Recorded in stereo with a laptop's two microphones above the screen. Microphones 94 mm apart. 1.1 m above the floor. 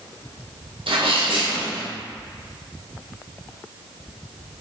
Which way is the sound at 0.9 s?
75° right (ahead or behind).